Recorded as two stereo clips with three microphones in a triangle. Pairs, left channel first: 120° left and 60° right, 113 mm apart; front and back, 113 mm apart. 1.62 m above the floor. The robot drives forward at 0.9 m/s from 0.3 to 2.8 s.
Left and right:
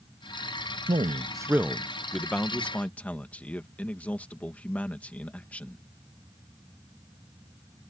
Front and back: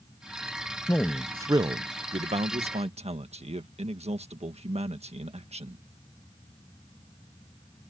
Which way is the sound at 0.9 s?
65° right.